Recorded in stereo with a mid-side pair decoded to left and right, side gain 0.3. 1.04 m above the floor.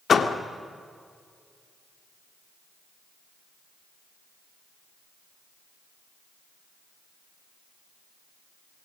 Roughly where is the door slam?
Ahead left.